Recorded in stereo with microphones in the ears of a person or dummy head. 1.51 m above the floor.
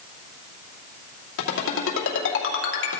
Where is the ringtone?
75° left (ahead or behind), 2.5 m.